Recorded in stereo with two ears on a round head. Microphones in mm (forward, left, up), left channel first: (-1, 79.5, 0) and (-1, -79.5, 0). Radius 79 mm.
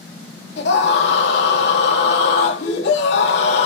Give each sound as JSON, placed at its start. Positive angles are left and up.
{"t": 0.6, "sound": "a scream", "side_deg": 65, "distance_m": 3.0}